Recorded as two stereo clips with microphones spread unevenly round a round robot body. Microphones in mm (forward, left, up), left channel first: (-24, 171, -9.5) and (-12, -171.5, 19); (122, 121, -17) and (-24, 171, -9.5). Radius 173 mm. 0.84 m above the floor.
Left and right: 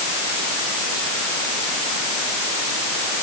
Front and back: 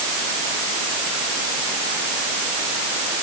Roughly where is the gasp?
I don't hear a gasp.